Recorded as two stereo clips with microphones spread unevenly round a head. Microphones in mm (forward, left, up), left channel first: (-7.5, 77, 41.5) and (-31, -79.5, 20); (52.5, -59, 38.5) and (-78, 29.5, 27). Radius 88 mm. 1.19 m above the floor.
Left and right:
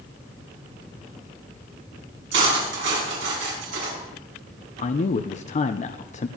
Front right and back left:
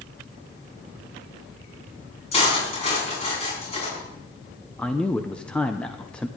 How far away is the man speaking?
About 0.7 m.